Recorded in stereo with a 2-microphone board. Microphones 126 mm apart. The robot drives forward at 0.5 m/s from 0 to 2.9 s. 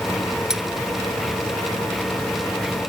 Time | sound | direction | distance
0.5 | cutlery clinking | 5° right (ahead or behind) | ?